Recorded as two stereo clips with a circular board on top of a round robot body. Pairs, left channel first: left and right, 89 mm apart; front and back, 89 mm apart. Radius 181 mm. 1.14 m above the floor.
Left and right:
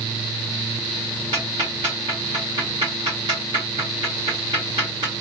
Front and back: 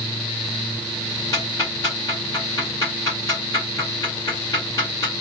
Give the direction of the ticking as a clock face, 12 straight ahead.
2 o'clock.